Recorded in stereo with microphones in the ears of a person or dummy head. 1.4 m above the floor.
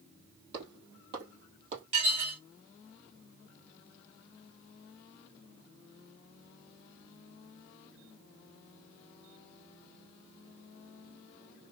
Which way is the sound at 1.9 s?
30° right (ahead or behind).